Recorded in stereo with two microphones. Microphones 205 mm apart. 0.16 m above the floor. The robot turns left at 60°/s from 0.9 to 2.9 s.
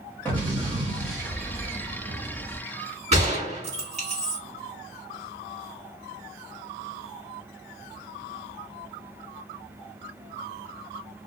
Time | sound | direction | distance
0.2 | an explosion | 10° left | 2.0 m
3.1 | a gunshot | 35° right (ahead or behind) | 2.0 m